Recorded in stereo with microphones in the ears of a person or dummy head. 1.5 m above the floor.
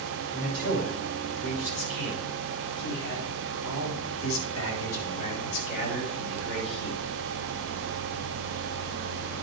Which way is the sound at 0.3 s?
55° left (ahead or behind).